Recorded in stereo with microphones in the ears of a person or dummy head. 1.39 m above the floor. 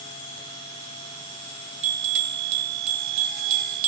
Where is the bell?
35° right (ahead or behind), 0.7 m.